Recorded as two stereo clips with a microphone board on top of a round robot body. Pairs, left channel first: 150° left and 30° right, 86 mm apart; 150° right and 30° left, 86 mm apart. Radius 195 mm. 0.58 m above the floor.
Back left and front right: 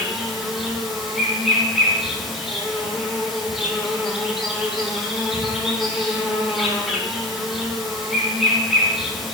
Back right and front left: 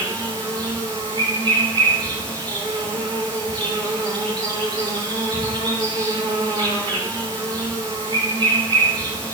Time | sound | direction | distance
0.0 | an insect | 55° left | 7 m